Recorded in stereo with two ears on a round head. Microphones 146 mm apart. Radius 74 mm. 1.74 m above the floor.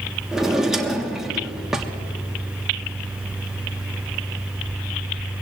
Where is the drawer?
5° right (ahead or behind), 1.3 m.